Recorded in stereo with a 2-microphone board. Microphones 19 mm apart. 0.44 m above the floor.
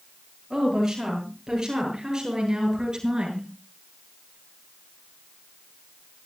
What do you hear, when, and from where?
0.5 s a woman speaking: 25° right (ahead or behind), 9.5 m; by 3.5 s 40° right (ahead or behind), 8 m